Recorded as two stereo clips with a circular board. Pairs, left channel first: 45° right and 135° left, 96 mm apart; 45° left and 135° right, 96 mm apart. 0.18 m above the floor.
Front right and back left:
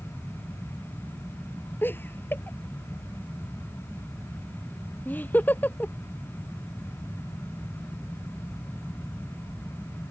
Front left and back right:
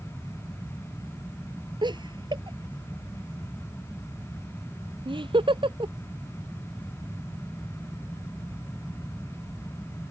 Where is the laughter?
110° right; by 5.9 s 115° right.